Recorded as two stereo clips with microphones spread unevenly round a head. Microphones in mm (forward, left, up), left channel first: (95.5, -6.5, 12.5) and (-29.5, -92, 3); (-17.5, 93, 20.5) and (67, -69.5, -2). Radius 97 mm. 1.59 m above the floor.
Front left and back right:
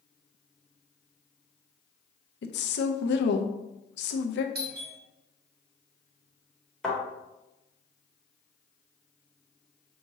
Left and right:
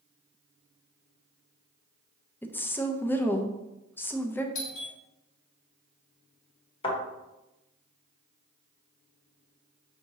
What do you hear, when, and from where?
2.4 s a woman speaking: 40° left, 0.6 m
4.5 s a doorbell: 175° left, 0.8 m
6.8 s a thud: 120° left, 1.4 m